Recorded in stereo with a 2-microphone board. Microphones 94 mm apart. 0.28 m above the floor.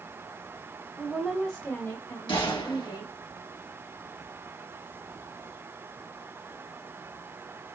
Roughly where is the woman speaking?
Centre.